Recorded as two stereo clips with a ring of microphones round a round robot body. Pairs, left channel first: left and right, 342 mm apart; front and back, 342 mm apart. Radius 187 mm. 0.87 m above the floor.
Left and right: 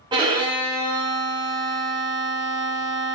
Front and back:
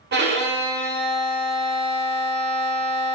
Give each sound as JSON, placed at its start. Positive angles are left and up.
{"t": 0.1, "sound": "a violin", "azimuth_deg": -155, "distance_m": 0.6}